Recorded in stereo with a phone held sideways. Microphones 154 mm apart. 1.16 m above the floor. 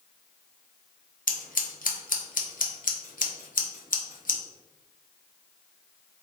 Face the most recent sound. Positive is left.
turn(degrees=70)  # may be behind; listen again after turning